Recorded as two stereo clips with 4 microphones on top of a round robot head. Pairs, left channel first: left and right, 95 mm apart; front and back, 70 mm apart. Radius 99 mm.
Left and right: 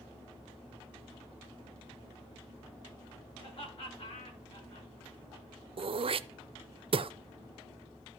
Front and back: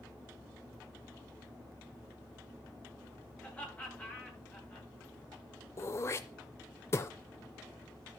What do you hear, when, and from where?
3.4 s laughter: 65° left, 9 m
5.8 s throat clearing: 60° right, 0.5 m